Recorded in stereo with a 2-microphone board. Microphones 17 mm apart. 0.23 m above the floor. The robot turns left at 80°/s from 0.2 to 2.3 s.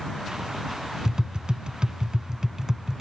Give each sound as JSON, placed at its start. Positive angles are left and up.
{"t": 1.1, "sound": "tapping", "side_deg": -40}